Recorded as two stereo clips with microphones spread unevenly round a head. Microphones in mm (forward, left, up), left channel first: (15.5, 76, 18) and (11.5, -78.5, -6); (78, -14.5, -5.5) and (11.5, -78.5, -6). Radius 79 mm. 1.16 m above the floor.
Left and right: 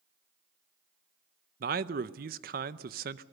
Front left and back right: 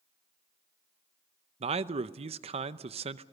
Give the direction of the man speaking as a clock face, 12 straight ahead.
4 o'clock.